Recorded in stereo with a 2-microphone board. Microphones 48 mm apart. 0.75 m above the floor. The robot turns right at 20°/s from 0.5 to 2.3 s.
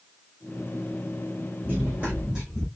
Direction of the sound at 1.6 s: 40° right (ahead or behind).